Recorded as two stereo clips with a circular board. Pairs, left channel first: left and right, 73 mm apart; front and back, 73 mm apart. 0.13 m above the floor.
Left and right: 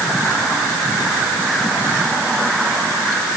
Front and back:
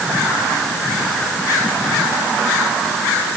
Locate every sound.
Only background noise.